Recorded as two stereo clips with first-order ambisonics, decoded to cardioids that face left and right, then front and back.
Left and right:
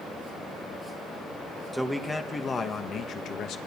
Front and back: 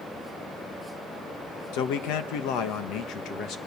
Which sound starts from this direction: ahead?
A man speaking, at 1.7 s.